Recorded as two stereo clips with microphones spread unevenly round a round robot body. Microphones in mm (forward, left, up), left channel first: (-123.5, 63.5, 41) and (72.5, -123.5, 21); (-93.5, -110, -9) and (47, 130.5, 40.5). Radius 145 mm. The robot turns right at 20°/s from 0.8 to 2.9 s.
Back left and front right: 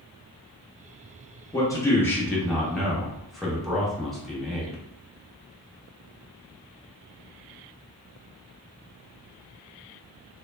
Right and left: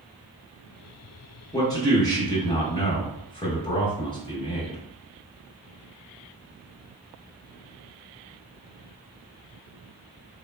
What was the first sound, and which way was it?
A man speaking, 150° right.